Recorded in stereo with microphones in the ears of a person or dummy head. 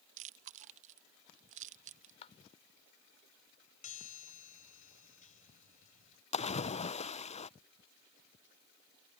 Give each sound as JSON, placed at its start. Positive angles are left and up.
{"t": 0.2, "sound": "chewing", "side_deg": -40}
{"t": 2.2, "sound": "a clap", "side_deg": 40}
{"t": 3.8, "sound": "a chime", "side_deg": 45}
{"t": 6.3, "sound": "a splash", "side_deg": 30}